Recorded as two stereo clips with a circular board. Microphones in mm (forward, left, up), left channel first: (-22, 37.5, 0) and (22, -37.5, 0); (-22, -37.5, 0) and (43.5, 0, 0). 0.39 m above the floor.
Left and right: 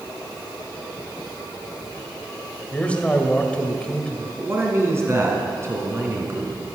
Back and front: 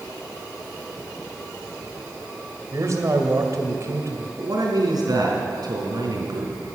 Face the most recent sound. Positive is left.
turn(degrees=0)